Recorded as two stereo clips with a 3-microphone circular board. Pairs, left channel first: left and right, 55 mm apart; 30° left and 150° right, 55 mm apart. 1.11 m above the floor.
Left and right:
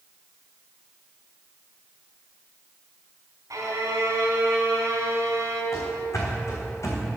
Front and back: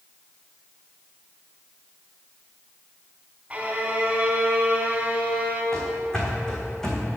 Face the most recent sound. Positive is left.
turn(degrees=110)